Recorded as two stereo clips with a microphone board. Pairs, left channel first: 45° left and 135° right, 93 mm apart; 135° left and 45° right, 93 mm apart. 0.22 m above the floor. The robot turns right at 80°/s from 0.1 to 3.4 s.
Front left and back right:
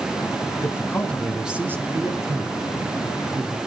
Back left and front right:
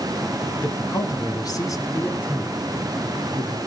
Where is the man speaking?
80° left, 2.0 m; by 3.6 s 60° right, 2.0 m.